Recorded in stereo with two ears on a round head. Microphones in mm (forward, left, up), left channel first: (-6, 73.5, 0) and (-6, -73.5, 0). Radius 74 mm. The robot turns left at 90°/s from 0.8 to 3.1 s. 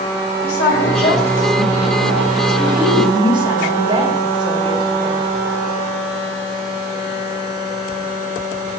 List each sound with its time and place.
0.4 s a woman speaking: 60° left, 2.5 m; by 5.2 s 150° right, 2.5 m